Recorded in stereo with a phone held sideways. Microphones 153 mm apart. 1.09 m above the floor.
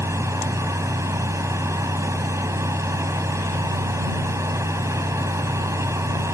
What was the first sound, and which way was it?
A fan, 20° right (ahead or behind).